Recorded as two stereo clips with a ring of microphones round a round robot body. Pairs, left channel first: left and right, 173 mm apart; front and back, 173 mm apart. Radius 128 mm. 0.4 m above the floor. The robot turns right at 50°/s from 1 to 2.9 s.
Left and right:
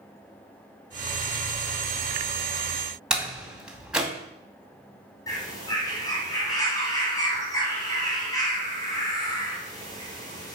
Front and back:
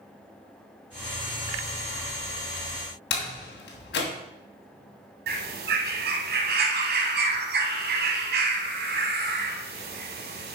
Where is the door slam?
5° right, 2.5 m.